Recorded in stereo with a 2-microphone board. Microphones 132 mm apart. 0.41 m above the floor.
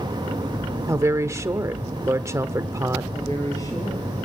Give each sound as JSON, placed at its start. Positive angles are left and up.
{"t": 0.9, "sound": "a woman speaking", "side_deg": -25, "distance_m": 1.3}
{"t": 3.1, "sound": "a woman speaking", "side_deg": 25, "distance_m": 7.5}